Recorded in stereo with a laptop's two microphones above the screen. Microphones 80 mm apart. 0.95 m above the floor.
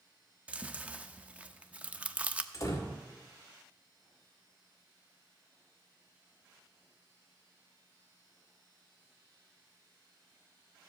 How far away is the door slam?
About 2.5 m.